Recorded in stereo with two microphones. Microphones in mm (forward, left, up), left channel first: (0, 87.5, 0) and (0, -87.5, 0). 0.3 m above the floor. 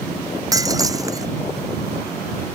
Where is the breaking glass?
20° right (ahead or behind).